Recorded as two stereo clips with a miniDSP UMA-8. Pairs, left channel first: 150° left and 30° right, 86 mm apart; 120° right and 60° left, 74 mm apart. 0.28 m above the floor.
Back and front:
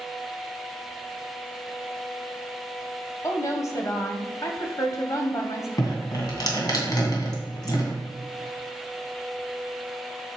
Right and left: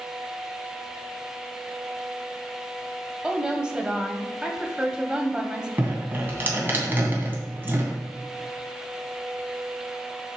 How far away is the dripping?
About 2.5 m.